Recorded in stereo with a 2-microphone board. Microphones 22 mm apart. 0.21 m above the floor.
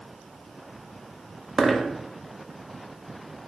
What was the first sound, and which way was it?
A dropped coin, 5° right (ahead or behind).